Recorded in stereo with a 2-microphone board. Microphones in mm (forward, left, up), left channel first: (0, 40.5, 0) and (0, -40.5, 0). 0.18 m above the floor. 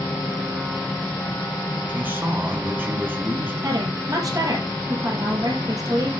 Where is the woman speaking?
50° right (ahead or behind), 5 m.